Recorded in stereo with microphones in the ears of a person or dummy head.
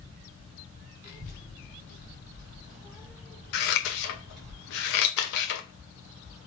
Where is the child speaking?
45° left (ahead or behind), 1.3 m; by 4.5 s 5° right (ahead or behind), 1.7 m.